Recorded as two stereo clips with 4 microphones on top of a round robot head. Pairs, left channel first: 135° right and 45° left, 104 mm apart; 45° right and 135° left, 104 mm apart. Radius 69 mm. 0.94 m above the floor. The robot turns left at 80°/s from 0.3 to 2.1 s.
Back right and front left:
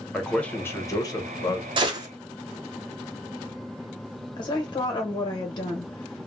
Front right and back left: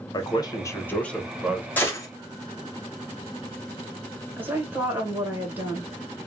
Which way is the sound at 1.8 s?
25° left.